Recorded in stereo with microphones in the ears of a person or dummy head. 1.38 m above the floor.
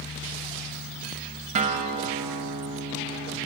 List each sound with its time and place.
1.6 s a guitar: 40° right (ahead or behind), 0.7 m